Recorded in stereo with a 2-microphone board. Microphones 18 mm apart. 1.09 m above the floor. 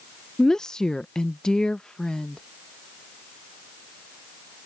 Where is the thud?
I don't hear a thud.